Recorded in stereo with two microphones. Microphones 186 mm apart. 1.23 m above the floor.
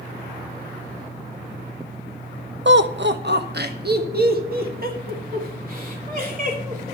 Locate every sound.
2.6 s laughter: 85° right, 0.7 m; by 7.0 s 50° right (ahead or behind), 3.5 m